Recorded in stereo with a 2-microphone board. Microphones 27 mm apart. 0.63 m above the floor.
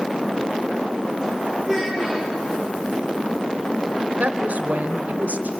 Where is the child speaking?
15° left (ahead or behind), 8 m.